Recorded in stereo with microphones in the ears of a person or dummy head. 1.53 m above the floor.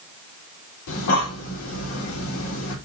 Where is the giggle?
No giggle in this recording.